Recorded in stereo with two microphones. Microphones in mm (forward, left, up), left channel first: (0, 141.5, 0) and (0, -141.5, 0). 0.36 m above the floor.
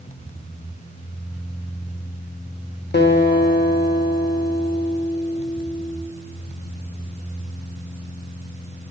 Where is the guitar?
40° left (ahead or behind), 0.5 m.